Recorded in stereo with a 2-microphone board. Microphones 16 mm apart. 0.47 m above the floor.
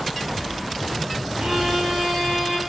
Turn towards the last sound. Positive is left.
turn(degrees=-65)  # may be behind; listen again after turning